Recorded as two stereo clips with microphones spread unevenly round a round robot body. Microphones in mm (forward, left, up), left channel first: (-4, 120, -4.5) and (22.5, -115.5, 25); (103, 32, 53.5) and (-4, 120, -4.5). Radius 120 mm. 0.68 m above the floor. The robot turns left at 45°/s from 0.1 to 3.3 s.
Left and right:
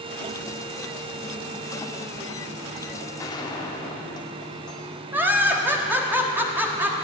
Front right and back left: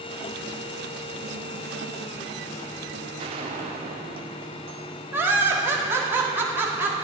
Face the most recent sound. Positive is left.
turn(degrees=-170)